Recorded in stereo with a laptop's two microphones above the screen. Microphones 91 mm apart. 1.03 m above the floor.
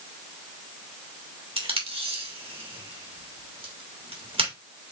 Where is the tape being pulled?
80° right, 1.4 m.